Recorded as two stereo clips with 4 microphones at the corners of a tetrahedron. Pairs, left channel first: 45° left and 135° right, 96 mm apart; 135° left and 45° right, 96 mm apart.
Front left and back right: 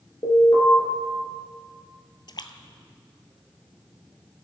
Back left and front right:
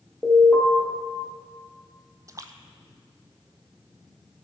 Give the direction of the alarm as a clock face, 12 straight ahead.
10 o'clock.